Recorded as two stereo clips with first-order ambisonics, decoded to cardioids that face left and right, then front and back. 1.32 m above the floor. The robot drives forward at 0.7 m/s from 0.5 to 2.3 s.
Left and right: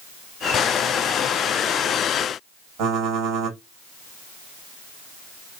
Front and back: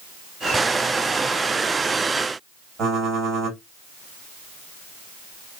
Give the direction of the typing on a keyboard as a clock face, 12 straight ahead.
4 o'clock.